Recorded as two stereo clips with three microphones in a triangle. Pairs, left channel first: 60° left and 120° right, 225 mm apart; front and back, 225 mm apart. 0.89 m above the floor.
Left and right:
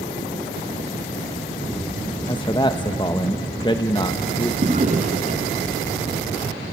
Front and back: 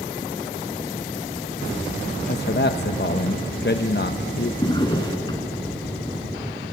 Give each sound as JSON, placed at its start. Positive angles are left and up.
{"t": 2.3, "sound": "a man speaking", "azimuth_deg": -5, "distance_m": 0.7}
{"t": 4.6, "sound": "a drawer", "azimuth_deg": -65, "distance_m": 2.0}